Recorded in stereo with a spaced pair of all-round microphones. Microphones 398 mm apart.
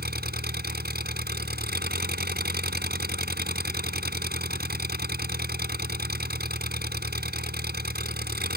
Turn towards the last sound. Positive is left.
turn(degrees=-25)  # may be behind; listen again after turning